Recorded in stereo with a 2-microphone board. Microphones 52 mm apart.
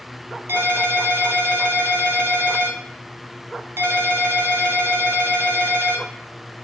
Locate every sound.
0.5 s a ringtone: 55° right (ahead or behind), 0.8 m